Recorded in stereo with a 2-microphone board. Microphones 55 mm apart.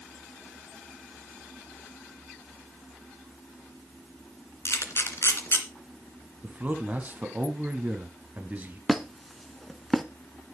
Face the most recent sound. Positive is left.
turn(degrees=0)  # may be behind; listen again after turning